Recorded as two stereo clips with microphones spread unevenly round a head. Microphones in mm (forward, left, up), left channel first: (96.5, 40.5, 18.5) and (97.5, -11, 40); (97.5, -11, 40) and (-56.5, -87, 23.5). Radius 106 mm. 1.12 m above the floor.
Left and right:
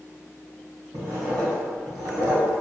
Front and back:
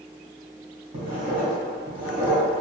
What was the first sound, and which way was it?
Writing, 140° right.